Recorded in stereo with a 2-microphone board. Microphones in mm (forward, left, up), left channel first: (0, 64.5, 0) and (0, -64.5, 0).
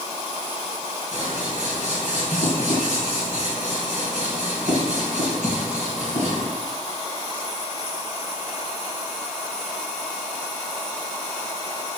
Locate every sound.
1.1 s scissors: 65° right (ahead or behind), 2.5 m